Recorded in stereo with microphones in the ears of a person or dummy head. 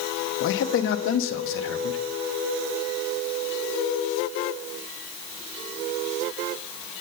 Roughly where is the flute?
I don't hear a flute.